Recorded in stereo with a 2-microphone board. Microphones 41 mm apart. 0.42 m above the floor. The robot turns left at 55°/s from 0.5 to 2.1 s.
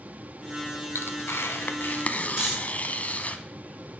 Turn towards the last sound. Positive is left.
turn(degrees=-15)  # may be behind; listen again after turning